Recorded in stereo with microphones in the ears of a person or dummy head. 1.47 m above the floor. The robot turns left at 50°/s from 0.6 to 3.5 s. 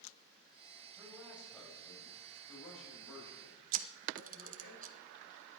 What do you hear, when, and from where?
1.0 s a man speaking: 160° right, 7.5 m; by 4.7 s 75° left, 7.5 m
3.7 s a camera shutter: 40° right (ahead or behind), 0.8 m